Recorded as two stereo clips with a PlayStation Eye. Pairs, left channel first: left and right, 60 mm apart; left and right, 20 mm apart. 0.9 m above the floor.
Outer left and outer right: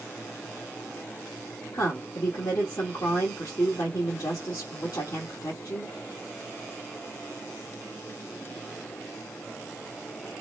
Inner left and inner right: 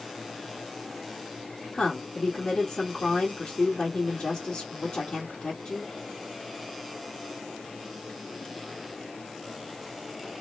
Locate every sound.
1.7 s a woman speaking: 70° left (ahead or behind), 1.7 m